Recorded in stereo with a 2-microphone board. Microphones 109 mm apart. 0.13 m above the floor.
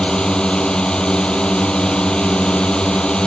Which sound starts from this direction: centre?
A drone, at 0.0 s.